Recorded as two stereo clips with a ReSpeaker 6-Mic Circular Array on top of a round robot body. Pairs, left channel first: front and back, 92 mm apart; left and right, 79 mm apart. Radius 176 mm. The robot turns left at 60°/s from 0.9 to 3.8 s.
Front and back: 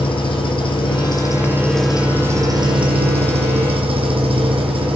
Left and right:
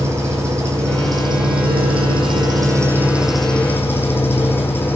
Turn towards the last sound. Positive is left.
turn(degrees=150)